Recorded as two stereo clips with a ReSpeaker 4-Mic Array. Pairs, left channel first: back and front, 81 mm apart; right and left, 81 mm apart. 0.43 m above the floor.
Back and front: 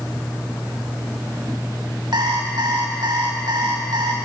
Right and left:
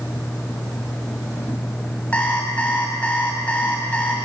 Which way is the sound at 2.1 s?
20° right.